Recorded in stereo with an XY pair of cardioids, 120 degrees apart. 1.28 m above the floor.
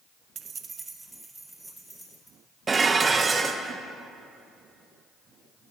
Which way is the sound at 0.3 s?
50° right.